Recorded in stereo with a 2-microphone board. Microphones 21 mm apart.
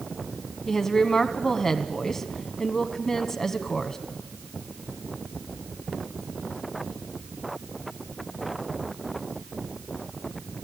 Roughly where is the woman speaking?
Left.